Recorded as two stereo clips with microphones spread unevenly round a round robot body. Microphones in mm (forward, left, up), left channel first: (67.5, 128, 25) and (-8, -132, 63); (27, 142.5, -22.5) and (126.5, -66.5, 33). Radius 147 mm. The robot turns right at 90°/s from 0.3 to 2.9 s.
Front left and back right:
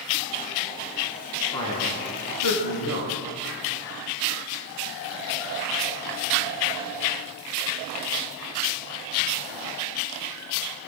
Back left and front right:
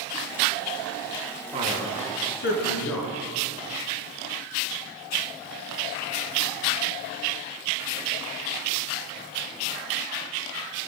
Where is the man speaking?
10° right, 6.5 m; by 3.1 s 115° left, 6.5 m.